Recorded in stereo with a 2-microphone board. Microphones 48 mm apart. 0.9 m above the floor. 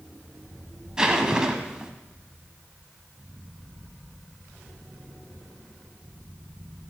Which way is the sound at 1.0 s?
15° right (ahead or behind).